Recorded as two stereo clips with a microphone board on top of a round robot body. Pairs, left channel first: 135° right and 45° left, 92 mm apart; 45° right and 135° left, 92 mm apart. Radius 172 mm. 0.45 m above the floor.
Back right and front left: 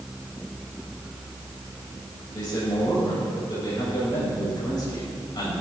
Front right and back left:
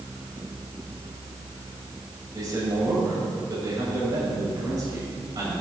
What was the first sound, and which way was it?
A man speaking, 175° right.